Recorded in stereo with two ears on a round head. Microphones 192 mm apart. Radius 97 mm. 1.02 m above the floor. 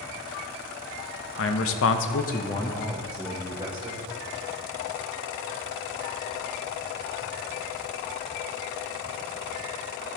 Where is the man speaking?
70° left (ahead or behind), 0.9 m; by 4.0 s 20° right (ahead or behind), 1.5 m.